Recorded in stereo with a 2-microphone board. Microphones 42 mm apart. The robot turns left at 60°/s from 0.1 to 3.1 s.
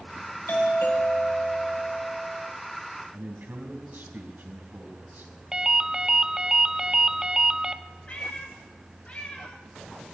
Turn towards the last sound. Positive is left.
turn(degrees=30)  # may be behind; listen again after turning